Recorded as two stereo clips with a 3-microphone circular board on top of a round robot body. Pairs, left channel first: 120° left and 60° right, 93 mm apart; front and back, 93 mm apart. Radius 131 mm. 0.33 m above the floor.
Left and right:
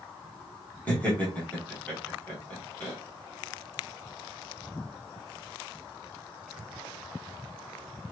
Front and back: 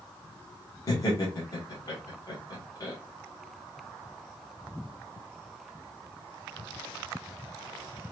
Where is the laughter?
45° left, 2.5 m.